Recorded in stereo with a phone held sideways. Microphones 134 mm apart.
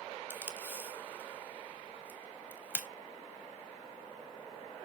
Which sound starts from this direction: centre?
Tape being pulled, at 0.3 s.